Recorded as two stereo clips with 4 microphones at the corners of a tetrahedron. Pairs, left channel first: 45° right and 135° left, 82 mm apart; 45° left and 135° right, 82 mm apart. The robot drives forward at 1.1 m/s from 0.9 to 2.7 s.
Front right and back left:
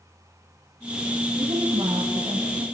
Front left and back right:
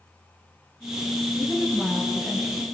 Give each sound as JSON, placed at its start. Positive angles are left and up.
{"t": 1.4, "sound": "a woman speaking", "azimuth_deg": 130, "distance_m": 4.0}